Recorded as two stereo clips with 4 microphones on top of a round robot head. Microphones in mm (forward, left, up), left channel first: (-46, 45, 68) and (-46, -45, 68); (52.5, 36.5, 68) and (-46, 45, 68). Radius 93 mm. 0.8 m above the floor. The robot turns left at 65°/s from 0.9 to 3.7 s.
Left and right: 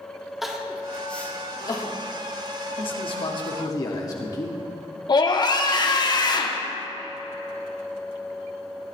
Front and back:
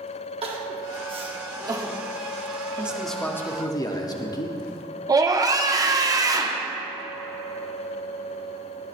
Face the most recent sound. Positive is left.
turn(degrees=125)